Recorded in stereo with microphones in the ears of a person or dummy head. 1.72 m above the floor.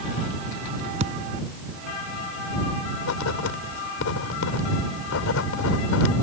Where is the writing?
75° left (ahead or behind).